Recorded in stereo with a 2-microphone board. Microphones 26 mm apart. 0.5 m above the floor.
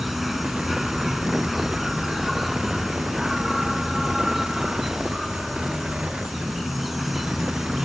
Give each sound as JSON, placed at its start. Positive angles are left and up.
{"t": 0.0, "sound": "an insect", "side_deg": -5}